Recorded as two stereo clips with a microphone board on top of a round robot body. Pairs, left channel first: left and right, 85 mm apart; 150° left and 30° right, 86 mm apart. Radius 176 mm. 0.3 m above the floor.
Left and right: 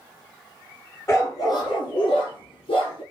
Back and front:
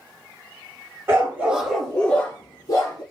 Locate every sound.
1.1 s a dog barking: 30° left, 1.5 m; by 3.0 s 105° left, 1.9 m